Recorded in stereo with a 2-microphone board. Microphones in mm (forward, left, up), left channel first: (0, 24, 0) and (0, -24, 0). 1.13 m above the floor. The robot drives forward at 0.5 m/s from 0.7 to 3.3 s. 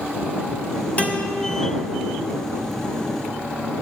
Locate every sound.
1.0 s a guitar: 30° left (ahead or behind), 0.7 m